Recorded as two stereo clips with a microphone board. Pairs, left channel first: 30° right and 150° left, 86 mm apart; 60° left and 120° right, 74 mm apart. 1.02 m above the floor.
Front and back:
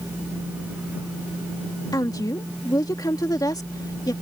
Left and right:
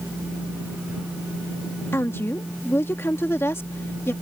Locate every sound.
1.9 s a woman speaking: 5° left